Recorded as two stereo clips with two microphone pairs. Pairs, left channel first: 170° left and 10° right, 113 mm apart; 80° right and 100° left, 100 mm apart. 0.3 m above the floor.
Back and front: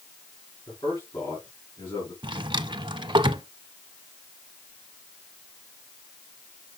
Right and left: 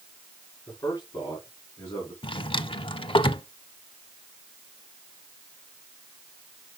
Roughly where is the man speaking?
Behind right.